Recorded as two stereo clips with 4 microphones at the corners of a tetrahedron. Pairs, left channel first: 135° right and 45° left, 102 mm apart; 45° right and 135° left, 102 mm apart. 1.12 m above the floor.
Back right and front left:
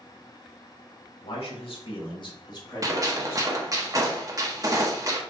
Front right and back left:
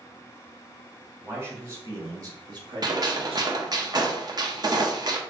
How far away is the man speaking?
About 1.9 m.